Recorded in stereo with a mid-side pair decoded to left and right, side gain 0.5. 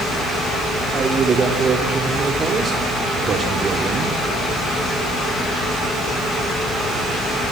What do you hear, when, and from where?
0.9 s a man speaking: 40° right, 2.5 m